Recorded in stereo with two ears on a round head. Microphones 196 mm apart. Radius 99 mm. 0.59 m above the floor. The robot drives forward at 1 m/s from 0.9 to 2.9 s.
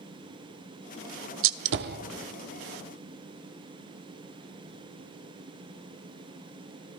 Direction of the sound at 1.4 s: 65° right (ahead or behind).